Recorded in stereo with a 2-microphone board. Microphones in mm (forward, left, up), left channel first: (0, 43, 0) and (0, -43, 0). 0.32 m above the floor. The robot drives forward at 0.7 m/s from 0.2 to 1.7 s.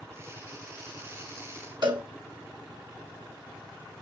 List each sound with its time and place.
1.8 s a cowbell: 60° right (ahead or behind), 3 m